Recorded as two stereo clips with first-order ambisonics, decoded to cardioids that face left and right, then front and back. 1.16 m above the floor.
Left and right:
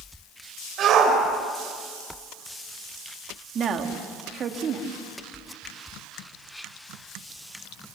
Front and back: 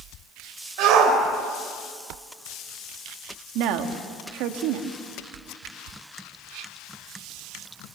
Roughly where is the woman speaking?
Behind right.